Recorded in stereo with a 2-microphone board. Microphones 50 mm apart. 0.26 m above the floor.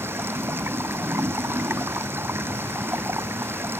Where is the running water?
50° right (ahead or behind).